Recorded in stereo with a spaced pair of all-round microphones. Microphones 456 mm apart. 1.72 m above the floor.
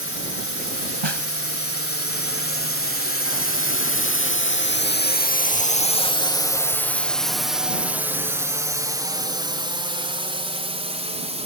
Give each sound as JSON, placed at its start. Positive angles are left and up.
{"t": 0.0, "sound": "a drone", "side_deg": 30}
{"t": 1.0, "sound": "a snare drum", "side_deg": -75}